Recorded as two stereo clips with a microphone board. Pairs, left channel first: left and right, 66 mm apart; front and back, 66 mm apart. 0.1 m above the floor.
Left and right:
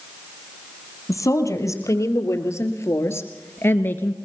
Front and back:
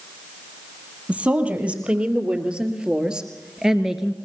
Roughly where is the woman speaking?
Behind left.